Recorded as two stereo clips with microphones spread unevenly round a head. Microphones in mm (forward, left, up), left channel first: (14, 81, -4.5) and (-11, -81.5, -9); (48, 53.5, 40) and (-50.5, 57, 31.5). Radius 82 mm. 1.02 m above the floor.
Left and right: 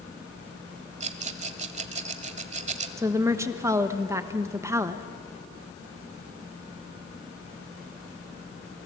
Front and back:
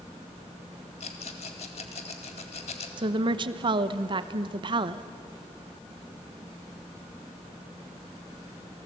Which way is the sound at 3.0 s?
170° right.